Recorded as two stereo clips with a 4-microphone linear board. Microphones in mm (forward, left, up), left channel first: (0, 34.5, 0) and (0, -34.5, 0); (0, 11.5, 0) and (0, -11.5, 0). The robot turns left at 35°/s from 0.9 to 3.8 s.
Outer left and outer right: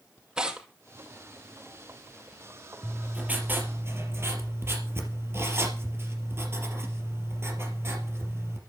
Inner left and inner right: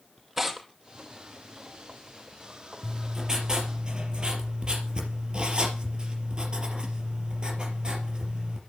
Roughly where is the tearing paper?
Centre.